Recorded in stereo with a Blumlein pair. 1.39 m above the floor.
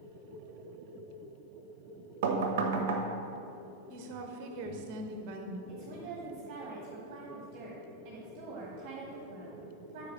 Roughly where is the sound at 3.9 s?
Ahead right.